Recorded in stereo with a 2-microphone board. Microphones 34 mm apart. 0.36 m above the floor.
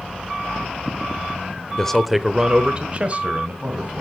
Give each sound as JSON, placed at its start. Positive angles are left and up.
{"t": 1.8, "sound": "a man speaking", "side_deg": 20, "distance_m": 0.8}